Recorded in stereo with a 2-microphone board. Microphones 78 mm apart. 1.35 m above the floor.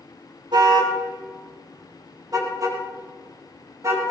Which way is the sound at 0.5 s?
75° right (ahead or behind).